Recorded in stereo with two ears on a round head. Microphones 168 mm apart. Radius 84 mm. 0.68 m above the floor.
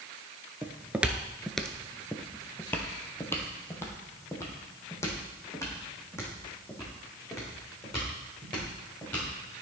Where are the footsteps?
10° right (ahead or behind), 0.7 m; by 9.6 s 15° left (ahead or behind), 4.5 m.